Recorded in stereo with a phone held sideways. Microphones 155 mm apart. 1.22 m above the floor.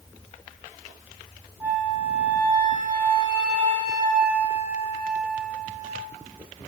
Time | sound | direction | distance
1.6 | a flute | 15° right (ahead or behind) | 0.7 m